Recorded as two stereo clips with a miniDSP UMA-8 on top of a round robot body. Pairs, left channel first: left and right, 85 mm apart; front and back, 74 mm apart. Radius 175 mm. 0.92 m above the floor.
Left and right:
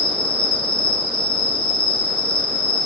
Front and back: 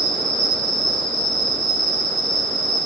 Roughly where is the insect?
Left.